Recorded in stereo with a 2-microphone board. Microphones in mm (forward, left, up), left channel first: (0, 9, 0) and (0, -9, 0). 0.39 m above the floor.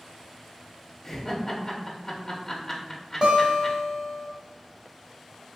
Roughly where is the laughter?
Centre.